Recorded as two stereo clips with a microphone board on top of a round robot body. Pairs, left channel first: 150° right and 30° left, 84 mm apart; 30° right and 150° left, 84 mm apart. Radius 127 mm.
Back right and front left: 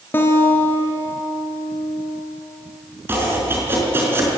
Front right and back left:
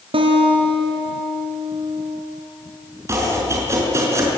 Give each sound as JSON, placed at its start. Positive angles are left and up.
{"t": 0.1, "sound": "a guitar", "azimuth_deg": 145, "distance_m": 3.0}
{"t": 3.1, "sound": "chopping", "azimuth_deg": 95, "distance_m": 4.5}